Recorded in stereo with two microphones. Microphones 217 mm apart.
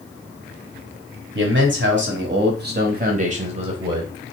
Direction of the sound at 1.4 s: 55° right (ahead or behind).